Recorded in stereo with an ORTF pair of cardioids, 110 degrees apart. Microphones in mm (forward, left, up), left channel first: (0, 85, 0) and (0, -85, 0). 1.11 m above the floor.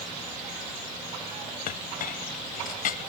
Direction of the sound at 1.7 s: 55° left.